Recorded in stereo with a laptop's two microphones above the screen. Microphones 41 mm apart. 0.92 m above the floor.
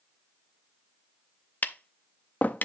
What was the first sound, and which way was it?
Tapping, 45° left (ahead or behind).